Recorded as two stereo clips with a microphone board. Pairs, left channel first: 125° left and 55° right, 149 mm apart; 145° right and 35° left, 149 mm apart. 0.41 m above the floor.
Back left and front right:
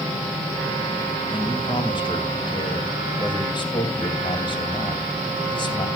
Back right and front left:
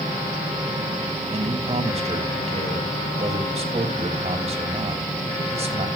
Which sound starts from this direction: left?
A man speaking, at 1.3 s.